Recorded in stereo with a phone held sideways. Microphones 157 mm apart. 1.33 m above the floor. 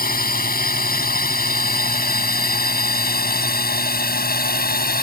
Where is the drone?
70° left (ahead or behind); by 5.0 s 75° left (ahead or behind).